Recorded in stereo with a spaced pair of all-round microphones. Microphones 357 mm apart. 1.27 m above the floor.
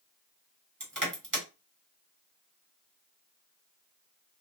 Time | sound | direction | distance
0.8 | crushing | 55° right (ahead or behind) | 1.3 m